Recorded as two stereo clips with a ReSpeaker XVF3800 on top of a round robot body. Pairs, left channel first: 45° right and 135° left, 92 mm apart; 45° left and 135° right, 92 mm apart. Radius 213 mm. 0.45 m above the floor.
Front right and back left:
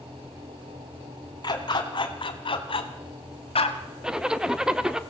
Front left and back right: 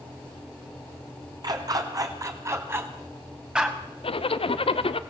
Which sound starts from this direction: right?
A dog barking, at 1.4 s.